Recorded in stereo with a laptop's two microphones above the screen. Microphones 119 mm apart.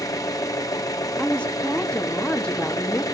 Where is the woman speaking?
10° left (ahead or behind), 1.3 m.